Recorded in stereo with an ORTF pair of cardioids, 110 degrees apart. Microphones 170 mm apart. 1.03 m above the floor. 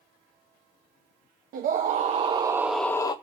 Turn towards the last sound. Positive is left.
turn(degrees=25)